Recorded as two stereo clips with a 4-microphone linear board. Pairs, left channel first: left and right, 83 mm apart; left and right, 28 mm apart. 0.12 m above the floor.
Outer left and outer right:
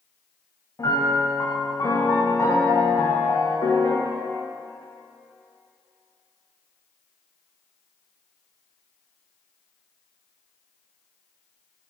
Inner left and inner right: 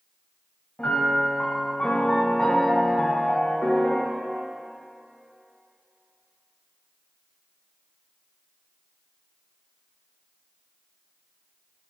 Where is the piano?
50° left (ahead or behind), 5.5 m.